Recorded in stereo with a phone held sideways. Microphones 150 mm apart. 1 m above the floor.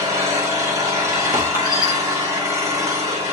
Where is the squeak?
25° left (ahead or behind), 3.5 m.